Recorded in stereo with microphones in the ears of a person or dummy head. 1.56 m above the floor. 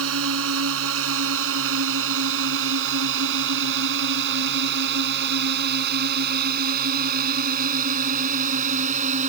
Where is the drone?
80° right; by 9.3 s 40° right (ahead or behind).